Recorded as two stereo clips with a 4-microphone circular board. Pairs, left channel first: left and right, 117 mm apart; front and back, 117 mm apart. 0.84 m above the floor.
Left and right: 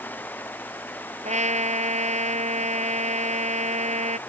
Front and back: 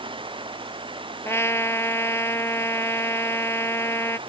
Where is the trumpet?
70° right.